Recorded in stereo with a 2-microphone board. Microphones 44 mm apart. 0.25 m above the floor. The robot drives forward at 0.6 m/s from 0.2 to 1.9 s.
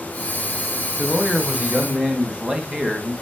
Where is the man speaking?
25° right (ahead or behind), 1.4 m; by 3.1 s 20° right (ahead or behind), 1.7 m.